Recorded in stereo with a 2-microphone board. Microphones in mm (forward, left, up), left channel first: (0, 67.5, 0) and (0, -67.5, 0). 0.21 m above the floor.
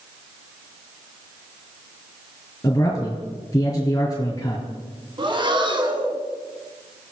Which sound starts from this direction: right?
Breathing, at 5.2 s.